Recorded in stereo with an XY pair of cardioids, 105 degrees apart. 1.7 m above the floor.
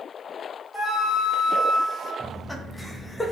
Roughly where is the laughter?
Ahead.